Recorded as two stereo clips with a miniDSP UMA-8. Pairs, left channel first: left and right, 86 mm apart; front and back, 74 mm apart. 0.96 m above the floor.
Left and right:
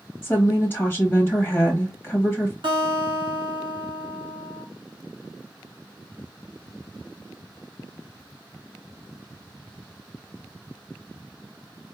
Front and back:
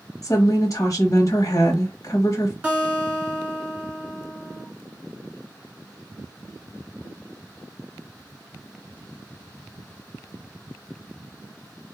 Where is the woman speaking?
25° left, 1.1 m.